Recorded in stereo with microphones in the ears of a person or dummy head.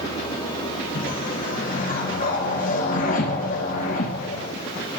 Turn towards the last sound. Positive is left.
turn(degrees=45)  # may be behind; listen again after turning